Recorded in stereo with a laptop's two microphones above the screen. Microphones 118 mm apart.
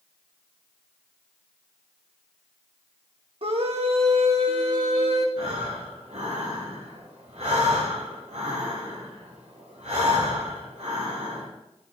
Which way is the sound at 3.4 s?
55° right (ahead or behind).